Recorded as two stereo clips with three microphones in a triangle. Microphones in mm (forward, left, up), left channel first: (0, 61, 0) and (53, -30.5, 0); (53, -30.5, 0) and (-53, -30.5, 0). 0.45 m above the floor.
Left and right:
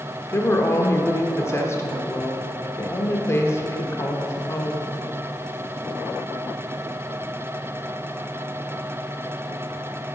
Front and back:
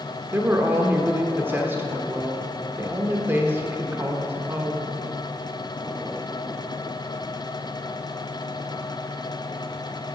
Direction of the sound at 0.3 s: 140° left.